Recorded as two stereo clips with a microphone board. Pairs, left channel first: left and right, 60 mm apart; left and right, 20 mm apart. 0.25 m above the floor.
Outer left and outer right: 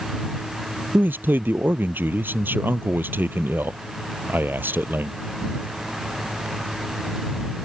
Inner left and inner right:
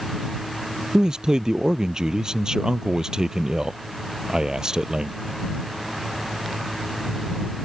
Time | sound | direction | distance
0.9 | a man speaking | 35° right (ahead or behind) | ?